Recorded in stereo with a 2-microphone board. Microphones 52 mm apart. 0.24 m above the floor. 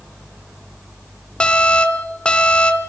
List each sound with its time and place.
1.4 s an alarm: 20° left (ahead or behind), 1.5 m